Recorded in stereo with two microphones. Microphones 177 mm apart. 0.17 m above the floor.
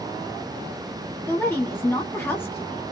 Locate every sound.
1.3 s a woman speaking: 15° left (ahead or behind), 1.2 m